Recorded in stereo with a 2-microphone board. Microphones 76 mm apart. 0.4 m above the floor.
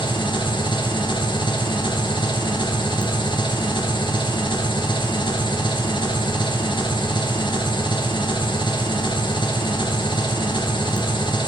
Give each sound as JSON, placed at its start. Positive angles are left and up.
{"t": 0.0, "sound": "an engine running", "side_deg": 85, "distance_m": 2.5}